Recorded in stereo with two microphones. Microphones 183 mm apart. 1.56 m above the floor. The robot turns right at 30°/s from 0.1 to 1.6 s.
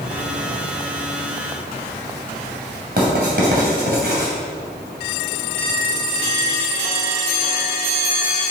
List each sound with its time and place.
3.0 s writing: 60° right (ahead or behind), 3 m